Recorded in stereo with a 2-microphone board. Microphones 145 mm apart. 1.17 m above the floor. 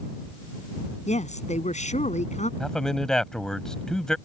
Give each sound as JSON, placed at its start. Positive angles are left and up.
{"t": 1.1, "sound": "a woman speaking", "side_deg": 55}
{"t": 2.6, "sound": "a man speaking", "side_deg": 5}